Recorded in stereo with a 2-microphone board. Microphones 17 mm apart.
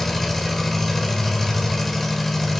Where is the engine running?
15° left (ahead or behind), 2.5 m.